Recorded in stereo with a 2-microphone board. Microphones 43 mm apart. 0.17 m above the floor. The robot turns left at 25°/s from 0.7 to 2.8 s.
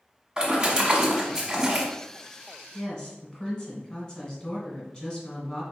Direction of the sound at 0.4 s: 20° right (ahead or behind).